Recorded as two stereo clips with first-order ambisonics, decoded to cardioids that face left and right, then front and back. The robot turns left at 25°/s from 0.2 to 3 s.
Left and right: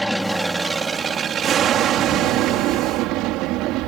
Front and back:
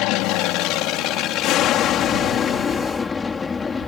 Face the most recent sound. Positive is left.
turn(degrees=-70)